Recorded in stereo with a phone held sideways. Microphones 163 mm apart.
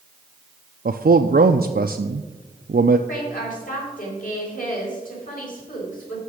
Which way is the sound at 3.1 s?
60° left (ahead or behind).